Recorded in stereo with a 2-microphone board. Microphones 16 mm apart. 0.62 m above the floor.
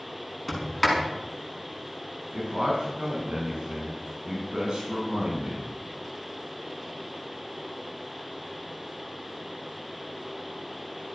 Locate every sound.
0.5 s a sliding door: 10° right (ahead or behind), 5.5 m
2.3 s a man speaking: 65° right (ahead or behind), 5.5 m